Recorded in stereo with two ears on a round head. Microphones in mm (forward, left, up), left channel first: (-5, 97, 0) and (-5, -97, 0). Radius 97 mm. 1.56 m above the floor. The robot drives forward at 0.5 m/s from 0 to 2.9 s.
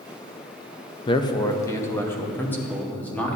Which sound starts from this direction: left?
A man speaking, at 1.1 s.